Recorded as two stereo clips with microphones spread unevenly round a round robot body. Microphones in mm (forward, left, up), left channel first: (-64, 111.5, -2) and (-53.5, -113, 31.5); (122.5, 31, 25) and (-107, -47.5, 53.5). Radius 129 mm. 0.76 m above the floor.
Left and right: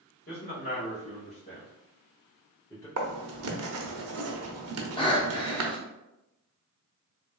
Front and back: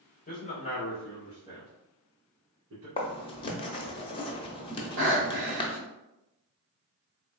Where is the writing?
55° right, 0.6 m.